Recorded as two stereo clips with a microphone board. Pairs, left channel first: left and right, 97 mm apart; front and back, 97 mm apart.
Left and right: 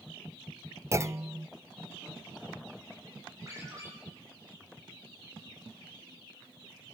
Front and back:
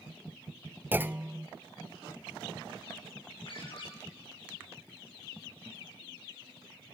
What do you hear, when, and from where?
0.9 s a clunk: 125° right, 0.5 m
3.5 s a ringtone: 35° right, 8 m